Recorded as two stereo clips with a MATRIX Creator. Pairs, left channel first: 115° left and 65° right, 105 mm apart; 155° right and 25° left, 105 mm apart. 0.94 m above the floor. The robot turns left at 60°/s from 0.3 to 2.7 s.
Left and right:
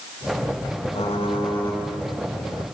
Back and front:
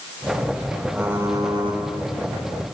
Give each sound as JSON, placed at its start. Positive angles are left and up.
{"t": 0.9, "sound": "typing on a keyboard", "azimuth_deg": 105, "distance_m": 5.5}